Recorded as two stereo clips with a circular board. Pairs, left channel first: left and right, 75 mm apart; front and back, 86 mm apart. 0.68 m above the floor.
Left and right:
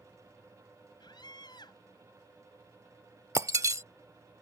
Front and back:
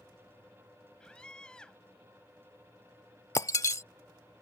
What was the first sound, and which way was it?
A scream, 80° left.